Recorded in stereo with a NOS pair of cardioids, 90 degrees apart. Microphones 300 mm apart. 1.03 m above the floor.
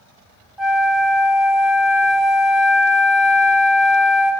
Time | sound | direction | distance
0.6 | a flute | straight ahead | 1.5 m